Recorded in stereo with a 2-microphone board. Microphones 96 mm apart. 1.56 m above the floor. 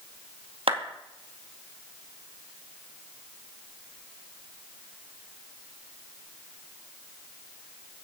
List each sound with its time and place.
0.7 s a clap: 80° right, 2.5 m